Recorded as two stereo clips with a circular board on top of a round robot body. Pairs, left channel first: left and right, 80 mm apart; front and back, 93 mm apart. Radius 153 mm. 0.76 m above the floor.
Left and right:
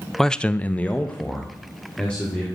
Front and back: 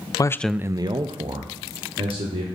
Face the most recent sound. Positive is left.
turn(degrees=165)